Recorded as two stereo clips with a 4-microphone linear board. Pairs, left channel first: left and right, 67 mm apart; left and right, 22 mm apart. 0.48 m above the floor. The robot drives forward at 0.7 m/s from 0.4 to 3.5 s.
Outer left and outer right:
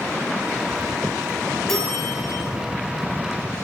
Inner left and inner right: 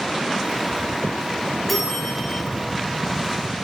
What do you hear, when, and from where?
1.7 s a bell: 5° left (ahead or behind), 6 m